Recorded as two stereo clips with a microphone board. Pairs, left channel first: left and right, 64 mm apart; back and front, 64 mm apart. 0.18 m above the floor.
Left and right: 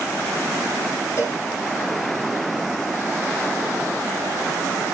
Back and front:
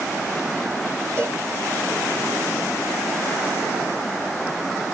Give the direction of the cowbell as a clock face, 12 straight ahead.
11 o'clock.